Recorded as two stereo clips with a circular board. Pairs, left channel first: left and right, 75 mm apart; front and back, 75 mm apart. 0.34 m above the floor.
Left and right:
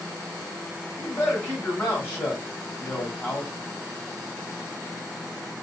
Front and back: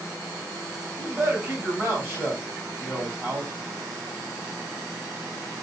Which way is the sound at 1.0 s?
135° left.